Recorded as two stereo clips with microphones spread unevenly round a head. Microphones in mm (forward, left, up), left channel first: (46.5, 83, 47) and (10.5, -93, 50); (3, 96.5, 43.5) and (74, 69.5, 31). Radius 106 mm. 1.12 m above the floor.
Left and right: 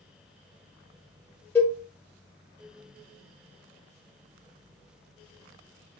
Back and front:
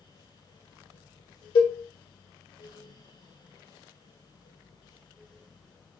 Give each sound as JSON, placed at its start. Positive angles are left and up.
{"t": 1.6, "sound": "a cowbell", "azimuth_deg": 160, "distance_m": 2.0}